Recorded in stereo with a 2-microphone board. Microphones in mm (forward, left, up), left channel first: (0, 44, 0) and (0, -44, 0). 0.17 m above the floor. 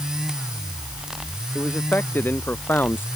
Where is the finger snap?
No finger snap in this recording.